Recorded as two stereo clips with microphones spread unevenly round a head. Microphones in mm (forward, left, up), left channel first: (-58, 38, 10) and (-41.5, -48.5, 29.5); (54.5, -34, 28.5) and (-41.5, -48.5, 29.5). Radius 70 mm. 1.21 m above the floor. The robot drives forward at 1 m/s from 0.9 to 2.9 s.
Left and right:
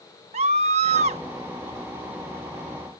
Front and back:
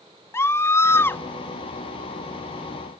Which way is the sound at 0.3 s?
55° right.